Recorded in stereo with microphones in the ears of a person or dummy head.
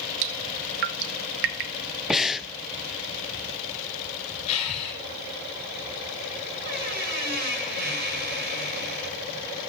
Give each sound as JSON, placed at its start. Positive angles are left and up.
{"t": 0.2, "sound": "dripping", "side_deg": -70, "distance_m": 0.8}
{"t": 2.1, "sound": "breathing", "side_deg": -5, "distance_m": 0.5}
{"t": 4.5, "sound": "breathing", "side_deg": 30, "distance_m": 3.5}
{"t": 6.6, "sound": "a squeak", "side_deg": -55, "distance_m": 6.5}